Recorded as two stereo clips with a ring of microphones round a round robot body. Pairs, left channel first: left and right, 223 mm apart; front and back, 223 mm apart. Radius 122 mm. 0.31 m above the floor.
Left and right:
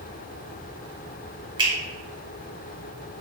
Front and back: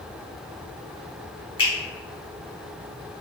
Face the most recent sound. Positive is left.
turn(degrees=-45)